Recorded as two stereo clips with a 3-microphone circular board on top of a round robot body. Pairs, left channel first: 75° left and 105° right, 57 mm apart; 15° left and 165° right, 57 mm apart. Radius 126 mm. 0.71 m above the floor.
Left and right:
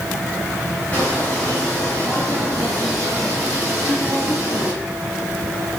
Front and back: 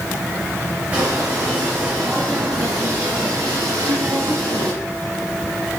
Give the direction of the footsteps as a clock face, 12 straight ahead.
7 o'clock.